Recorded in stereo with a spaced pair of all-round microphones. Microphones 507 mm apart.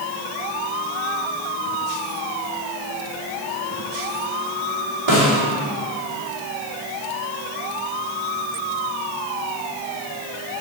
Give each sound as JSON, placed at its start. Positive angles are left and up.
{"t": 5.1, "sound": "a snare drum", "side_deg": -65, "distance_m": 3.0}